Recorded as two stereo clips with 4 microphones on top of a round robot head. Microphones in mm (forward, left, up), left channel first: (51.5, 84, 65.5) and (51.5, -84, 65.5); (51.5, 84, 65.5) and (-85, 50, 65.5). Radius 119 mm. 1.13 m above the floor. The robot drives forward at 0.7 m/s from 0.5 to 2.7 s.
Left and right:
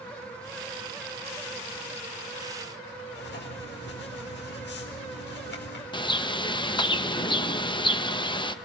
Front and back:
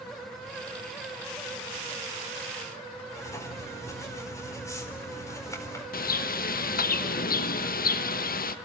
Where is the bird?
25° left, 1.1 m.